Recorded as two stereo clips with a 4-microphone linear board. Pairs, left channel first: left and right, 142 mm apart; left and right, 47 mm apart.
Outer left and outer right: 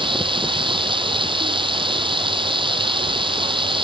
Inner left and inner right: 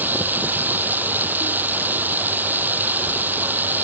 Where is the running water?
35° right (ahead or behind).